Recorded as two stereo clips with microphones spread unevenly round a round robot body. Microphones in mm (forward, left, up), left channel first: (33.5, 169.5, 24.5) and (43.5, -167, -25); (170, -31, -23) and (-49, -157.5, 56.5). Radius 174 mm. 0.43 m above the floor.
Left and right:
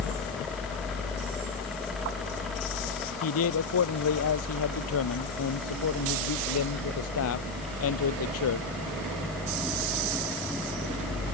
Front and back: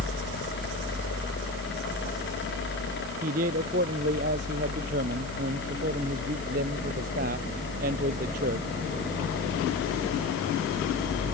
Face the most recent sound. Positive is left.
turn(degrees=145)